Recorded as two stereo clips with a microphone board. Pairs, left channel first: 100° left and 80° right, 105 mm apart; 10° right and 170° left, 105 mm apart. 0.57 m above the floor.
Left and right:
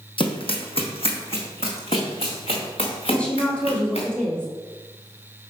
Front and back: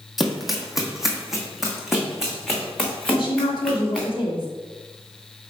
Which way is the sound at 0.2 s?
80° left.